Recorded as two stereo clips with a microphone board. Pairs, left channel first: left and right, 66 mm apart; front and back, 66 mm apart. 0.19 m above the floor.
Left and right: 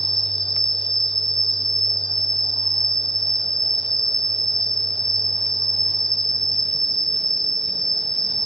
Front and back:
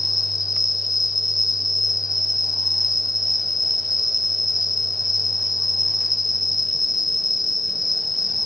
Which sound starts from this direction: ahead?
An insect, at 0.0 s.